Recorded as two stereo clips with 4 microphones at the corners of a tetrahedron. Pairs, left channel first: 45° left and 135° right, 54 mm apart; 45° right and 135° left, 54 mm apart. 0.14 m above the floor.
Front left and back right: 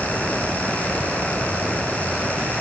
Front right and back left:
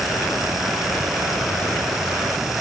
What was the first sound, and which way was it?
Only background noise.